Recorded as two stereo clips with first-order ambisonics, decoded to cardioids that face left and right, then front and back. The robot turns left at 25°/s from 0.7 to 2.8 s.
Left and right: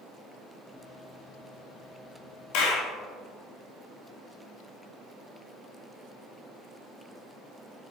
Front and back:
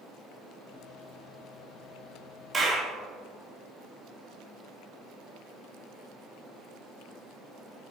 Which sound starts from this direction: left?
A clap, at 2.5 s.